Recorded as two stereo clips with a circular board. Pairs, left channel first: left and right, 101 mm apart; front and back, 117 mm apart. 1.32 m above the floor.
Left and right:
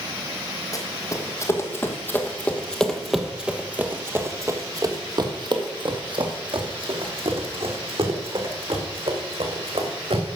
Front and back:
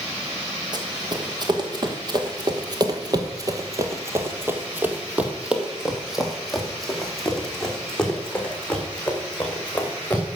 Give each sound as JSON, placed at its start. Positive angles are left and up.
{"t": 0.7, "sound": "running footsteps", "azimuth_deg": 135, "distance_m": 2.5}